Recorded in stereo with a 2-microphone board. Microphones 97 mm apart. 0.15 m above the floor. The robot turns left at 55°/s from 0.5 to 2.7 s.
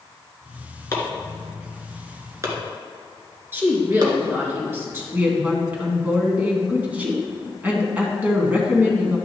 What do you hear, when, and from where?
0.9 s chopping: 30° left (ahead or behind), 1.5 m; by 4.1 s 45° right (ahead or behind), 1.5 m
3.5 s a woman speaking: 25° right (ahead or behind), 2.5 m
5.1 s a woman speaking: 15° right (ahead or behind), 1.4 m